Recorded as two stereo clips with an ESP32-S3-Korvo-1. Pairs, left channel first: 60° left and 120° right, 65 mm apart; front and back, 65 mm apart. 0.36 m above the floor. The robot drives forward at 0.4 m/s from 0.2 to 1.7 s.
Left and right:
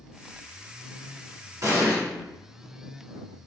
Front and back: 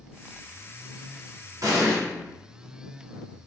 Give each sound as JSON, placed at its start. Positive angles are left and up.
{"t": 1.6, "sound": "an explosion", "azimuth_deg": -155, "distance_m": 1.5}